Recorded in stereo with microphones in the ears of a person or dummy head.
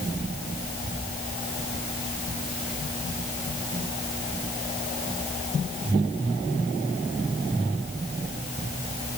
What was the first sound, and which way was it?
Only background noise.